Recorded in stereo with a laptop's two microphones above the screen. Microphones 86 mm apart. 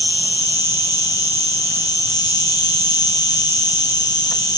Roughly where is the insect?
Left.